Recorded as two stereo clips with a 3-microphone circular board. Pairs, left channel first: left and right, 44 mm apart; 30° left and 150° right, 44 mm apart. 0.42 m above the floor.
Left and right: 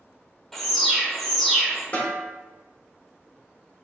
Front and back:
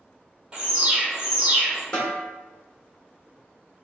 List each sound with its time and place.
0.5 s an alarm: 170° left, 1.3 m
1.9 s a snare drum: 90° left, 1.2 m